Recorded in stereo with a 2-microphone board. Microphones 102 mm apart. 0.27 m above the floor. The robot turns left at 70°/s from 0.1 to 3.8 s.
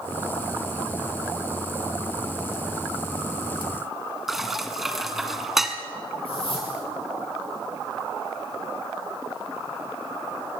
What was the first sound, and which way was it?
Dishes clattering, 5° right (ahead or behind).